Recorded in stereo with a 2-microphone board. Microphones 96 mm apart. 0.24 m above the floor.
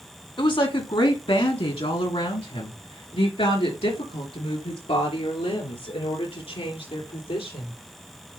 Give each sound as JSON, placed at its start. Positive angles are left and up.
{"t": 0.4, "sound": "a woman speaking", "side_deg": 55, "distance_m": 1.9}